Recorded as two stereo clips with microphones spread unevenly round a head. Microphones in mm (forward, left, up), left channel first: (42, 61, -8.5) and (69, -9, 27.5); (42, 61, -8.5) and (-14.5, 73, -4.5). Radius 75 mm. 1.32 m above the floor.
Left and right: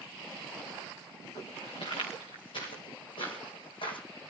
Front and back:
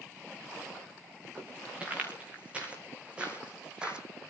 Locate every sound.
1.4 s footsteps: 100° left, 6.5 m; by 4.0 s 95° left, 3 m